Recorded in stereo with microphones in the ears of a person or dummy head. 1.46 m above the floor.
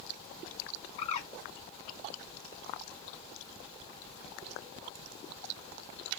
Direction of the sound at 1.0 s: 40° left (ahead or behind).